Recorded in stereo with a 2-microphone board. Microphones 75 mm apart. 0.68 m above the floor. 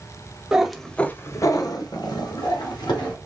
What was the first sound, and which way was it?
A cat meowing, 10° right (ahead or behind).